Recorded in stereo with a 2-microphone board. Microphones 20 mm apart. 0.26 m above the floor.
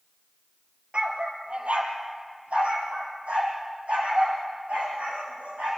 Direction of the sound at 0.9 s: 60° right (ahead or behind).